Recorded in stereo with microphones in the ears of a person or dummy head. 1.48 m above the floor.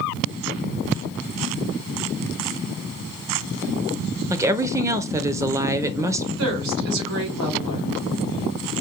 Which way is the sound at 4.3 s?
15° right (ahead or behind).